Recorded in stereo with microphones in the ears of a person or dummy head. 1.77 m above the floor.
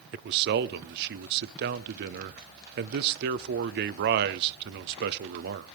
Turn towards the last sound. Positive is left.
turn(degrees=-60)  # may be behind; listen again after turning